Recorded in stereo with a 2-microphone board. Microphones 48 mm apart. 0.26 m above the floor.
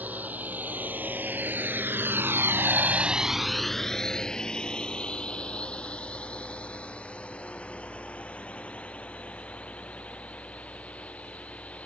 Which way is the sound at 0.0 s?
35° right (ahead or behind).